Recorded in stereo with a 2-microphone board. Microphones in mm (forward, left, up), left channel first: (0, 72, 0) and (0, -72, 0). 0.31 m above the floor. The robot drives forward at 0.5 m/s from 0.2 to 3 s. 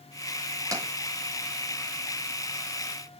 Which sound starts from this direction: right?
Tapping, at 0.7 s.